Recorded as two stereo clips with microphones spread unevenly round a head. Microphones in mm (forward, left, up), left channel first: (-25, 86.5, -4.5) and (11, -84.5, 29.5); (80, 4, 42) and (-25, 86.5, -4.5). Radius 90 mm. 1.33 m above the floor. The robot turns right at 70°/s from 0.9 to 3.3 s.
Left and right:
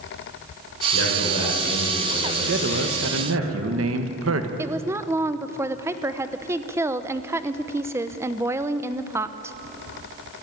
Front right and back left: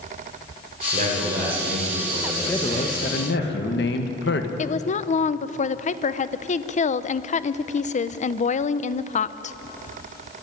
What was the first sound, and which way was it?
A man speaking, 105° left.